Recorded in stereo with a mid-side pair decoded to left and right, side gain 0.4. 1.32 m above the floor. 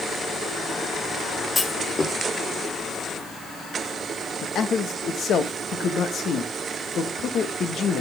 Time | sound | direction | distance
1.6 | a clunk | 35° left | 1.5 m
4.4 | a man speaking | 65° left | 1.5 m